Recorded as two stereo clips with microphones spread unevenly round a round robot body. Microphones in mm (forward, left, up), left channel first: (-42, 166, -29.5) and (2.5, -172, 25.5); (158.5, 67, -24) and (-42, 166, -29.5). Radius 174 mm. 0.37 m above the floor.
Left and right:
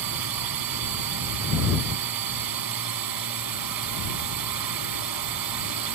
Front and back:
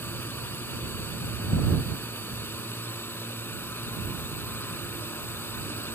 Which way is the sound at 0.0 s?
110° right.